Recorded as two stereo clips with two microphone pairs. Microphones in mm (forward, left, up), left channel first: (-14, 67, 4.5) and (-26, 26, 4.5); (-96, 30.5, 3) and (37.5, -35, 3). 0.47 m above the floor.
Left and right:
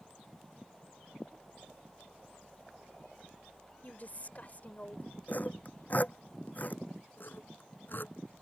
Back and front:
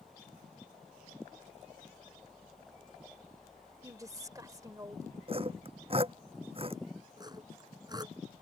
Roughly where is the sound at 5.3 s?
Ahead left.